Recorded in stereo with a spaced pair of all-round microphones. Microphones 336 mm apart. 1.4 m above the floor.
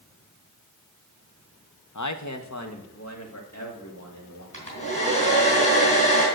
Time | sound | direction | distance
1.9 | a man speaking | 60° left (ahead or behind) | 0.8 m
4.5 | a hair dryer | 35° right (ahead or behind) | 4 m